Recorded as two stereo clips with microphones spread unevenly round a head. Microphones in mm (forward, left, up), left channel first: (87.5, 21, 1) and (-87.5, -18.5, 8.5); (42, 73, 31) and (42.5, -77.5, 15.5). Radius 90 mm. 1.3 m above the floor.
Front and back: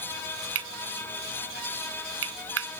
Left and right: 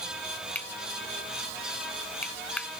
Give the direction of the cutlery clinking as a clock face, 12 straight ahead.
6 o'clock.